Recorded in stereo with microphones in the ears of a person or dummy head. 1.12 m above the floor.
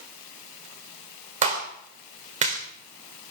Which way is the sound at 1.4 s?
35° right (ahead or behind).